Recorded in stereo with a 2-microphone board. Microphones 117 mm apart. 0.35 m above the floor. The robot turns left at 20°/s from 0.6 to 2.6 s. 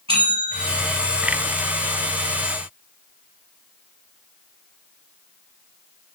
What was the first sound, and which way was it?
A bell, 50° right (ahead or behind).